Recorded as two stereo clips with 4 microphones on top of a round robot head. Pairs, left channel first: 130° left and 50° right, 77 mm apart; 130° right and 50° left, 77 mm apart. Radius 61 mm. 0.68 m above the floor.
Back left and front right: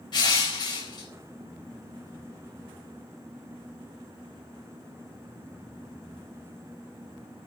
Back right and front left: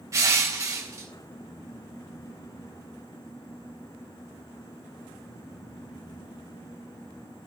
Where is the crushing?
100° left, 4 m.